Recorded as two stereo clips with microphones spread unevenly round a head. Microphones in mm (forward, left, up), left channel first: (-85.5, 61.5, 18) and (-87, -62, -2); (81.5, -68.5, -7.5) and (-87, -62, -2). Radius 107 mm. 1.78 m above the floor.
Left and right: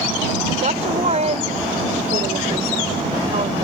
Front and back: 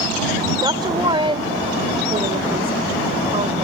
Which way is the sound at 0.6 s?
120° right.